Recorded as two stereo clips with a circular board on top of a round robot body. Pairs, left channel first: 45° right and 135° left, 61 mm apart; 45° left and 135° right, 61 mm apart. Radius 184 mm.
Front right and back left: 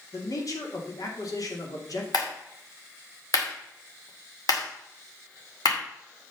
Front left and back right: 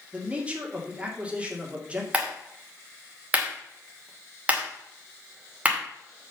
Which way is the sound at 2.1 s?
65° right.